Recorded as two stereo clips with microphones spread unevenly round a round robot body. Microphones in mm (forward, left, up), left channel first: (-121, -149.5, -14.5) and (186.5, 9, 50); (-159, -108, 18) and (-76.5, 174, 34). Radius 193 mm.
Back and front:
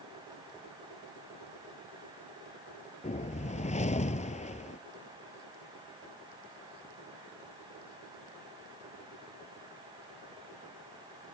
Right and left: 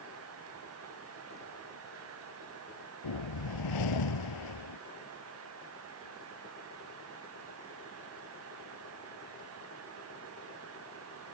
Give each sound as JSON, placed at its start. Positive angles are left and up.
{"t": 3.0, "sound": "a whoosh", "azimuth_deg": -80}